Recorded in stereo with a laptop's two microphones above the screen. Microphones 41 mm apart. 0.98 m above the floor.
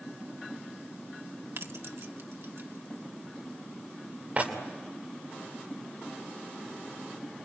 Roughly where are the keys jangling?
Right.